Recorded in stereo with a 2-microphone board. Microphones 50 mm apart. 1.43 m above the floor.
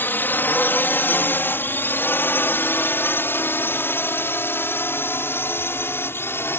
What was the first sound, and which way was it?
A drone, 40° left (ahead or behind).